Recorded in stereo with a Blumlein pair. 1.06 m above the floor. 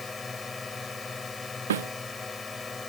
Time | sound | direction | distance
0.0 | a drone | 15° left | ?
1.7 | a snare drum | 60° right | ?